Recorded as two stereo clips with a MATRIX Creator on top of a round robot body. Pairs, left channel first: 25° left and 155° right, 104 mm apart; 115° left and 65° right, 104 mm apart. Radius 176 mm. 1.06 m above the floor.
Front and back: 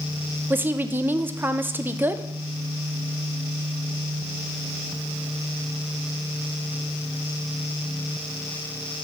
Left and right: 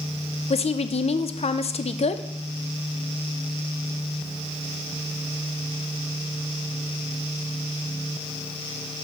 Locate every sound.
0.5 s a woman speaking: 130° left, 0.6 m